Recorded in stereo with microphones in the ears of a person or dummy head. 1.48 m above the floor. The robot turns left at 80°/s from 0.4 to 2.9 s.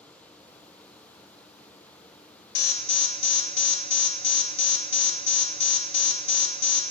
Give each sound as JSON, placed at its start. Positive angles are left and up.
{"t": 2.5, "sound": "an alarm", "side_deg": 65, "distance_m": 2.0}